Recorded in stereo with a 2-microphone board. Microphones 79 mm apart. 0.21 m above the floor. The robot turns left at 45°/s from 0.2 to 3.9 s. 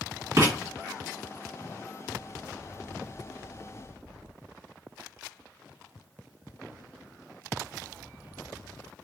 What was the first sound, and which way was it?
Writing, 40° right (ahead or behind).